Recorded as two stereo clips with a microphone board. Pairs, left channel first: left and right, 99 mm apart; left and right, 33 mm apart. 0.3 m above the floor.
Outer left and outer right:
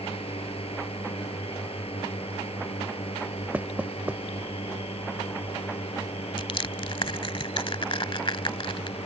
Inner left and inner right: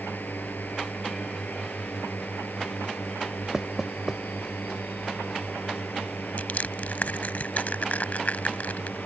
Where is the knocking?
15° right (ahead or behind).